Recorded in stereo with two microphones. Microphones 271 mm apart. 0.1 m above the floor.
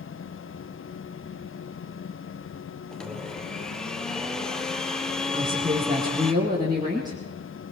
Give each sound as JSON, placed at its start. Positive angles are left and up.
{"t": 2.9, "sound": "a blender", "side_deg": 0, "distance_m": 1.4}
{"t": 5.3, "sound": "a woman speaking", "side_deg": -15, "distance_m": 4.5}